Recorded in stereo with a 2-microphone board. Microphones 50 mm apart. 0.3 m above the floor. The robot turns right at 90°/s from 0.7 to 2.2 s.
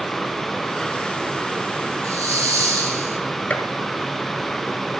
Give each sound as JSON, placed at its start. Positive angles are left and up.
{"t": 2.0, "sound": "a hiss", "side_deg": -75, "distance_m": 4.0}
{"t": 3.5, "sound": "a gunshot", "side_deg": 30, "distance_m": 1.2}